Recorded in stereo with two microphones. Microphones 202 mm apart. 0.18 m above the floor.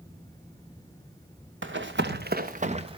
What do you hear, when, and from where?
1.6 s running footsteps: 80° right, 1.6 m; by 3.0 s 25° right (ahead or behind), 1.4 m